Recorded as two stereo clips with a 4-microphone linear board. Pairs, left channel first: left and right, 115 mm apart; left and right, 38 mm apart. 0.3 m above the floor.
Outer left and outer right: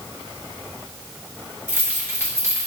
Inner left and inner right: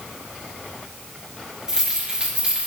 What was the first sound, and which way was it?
Keys jangling, 20° right (ahead or behind).